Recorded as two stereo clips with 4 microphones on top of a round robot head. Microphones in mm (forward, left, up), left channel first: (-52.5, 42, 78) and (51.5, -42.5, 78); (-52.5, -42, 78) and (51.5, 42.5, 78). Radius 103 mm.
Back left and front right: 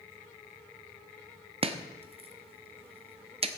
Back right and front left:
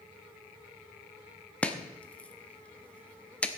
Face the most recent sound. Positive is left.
turn(degrees=-60)